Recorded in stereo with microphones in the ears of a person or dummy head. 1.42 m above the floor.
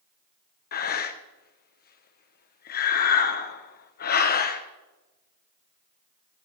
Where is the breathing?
45° left (ahead or behind), 0.7 m.